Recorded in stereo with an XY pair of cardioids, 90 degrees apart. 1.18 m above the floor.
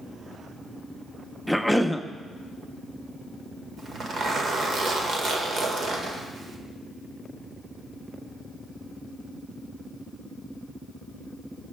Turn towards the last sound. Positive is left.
turn(degrees=-60)